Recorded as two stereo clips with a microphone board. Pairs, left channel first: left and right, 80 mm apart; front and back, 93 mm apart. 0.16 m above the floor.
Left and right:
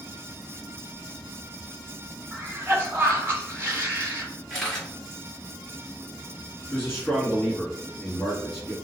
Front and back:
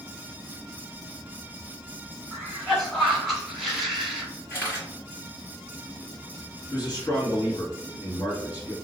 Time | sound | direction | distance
2.3 | a cough | 90° right | 1.4 m
4.5 | a camera shutter | 15° left | 1.9 m
6.7 | a man speaking | 30° left | 1.8 m